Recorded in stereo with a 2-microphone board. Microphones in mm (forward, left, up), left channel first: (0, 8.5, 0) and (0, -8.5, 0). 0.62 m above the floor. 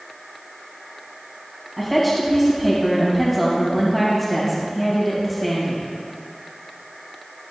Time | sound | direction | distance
1.8 | a woman speaking | 15° left (ahead or behind) | 3 m